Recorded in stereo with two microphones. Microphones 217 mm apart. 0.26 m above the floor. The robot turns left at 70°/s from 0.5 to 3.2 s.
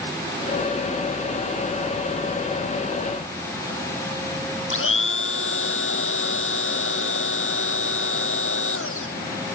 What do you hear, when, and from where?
4.7 s a blender: 75° left (ahead or behind)